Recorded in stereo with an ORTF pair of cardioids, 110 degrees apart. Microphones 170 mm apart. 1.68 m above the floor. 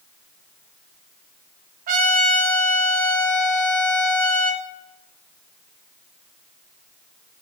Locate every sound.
1.9 s a trumpet: 60° right, 4.5 m